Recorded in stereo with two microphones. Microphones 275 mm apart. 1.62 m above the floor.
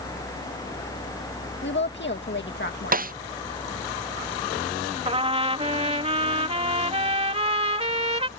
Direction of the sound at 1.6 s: 40° left (ahead or behind).